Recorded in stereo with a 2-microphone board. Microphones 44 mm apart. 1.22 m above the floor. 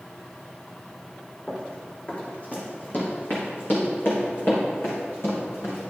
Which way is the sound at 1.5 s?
30° left (ahead or behind).